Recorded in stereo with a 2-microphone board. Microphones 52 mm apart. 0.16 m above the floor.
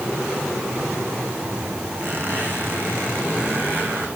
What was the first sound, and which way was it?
A squeak, 40° right (ahead or behind).